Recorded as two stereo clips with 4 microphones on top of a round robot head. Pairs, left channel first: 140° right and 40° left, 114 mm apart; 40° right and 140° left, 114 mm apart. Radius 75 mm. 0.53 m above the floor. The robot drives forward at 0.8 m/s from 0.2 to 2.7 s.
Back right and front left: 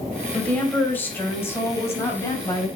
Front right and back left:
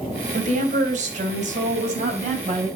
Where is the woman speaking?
140° left, 3.5 m; by 2.7 s 155° left, 5 m.